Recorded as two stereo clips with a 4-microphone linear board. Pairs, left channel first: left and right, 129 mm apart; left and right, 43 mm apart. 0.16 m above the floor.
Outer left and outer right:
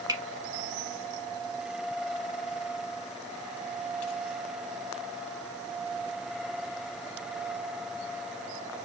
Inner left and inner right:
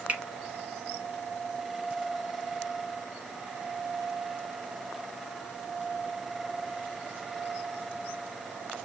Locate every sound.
0.1 s a finger snap: 35° right (ahead or behind), 1.0 m